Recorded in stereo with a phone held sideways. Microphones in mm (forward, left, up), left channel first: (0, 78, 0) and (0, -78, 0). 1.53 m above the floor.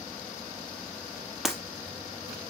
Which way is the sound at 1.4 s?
Centre (ahead or behind).